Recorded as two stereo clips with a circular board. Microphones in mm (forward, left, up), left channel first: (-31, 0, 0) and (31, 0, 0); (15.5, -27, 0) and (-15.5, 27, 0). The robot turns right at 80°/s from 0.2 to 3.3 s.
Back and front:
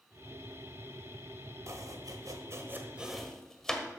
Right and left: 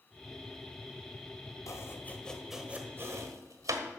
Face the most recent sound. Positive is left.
turn(degrees=100)